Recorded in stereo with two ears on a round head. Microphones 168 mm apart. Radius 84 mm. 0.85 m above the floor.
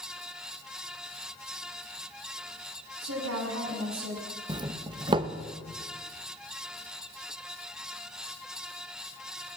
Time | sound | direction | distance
3.0 | a woman speaking | 85° right | 7 m
4.5 | a doorbell | 25° right (ahead or behind) | 1.2 m